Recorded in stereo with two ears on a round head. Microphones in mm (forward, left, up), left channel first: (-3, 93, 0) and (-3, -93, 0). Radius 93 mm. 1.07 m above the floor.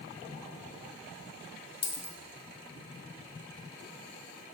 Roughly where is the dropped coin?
Left.